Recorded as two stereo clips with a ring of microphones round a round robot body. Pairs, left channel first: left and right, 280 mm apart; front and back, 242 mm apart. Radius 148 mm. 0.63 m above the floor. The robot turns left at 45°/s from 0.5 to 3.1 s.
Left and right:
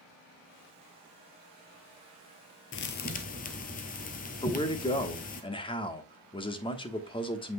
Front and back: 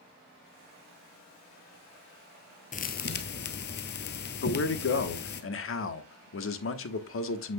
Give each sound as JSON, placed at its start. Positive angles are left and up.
{"t": 2.7, "sound": "a thud", "azimuth_deg": 50, "distance_m": 0.9}
{"t": 4.4, "sound": "a man speaking", "azimuth_deg": 20, "distance_m": 1.2}